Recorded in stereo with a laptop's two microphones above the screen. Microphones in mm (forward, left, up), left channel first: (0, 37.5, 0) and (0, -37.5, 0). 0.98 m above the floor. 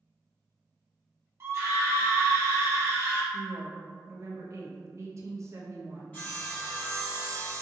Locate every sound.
1.4 s a scream: 35° right (ahead or behind), 0.7 m
3.3 s a woman speaking: 40° right (ahead or behind), 0.6 m
6.1 s sawing: 20° left (ahead or behind), 1.9 m